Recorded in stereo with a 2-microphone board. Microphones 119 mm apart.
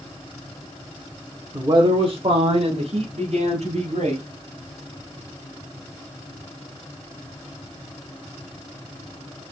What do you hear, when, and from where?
1.5 s a man speaking: 25° right (ahead or behind), 0.9 m; by 4.2 s 70° right (ahead or behind), 3 m